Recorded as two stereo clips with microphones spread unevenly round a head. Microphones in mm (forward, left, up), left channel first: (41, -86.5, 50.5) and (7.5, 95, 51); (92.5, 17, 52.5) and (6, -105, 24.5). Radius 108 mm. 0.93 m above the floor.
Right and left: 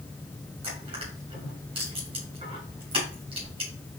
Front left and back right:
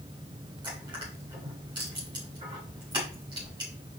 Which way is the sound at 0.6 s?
165° left.